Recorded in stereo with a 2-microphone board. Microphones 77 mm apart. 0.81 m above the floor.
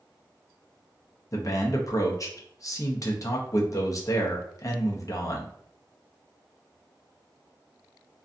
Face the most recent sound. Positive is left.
turn(degrees=45)  # may be behind; listen again after turning